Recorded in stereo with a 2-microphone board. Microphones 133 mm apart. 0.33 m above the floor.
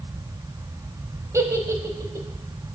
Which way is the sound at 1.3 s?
25° right (ahead or behind).